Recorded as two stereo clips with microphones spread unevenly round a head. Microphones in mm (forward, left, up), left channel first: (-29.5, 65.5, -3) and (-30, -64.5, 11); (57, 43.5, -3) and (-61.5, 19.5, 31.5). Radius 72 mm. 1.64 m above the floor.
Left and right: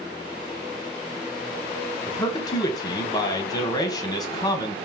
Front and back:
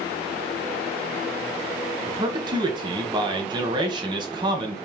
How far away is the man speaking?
About 1.1 m.